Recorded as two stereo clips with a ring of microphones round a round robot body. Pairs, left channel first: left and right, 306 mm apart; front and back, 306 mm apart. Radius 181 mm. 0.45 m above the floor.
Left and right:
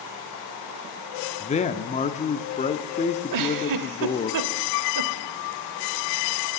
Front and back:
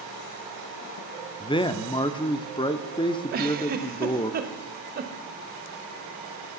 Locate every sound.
1.4 s a man speaking: 55° left, 0.7 m
3.3 s a giggle: 115° right, 0.7 m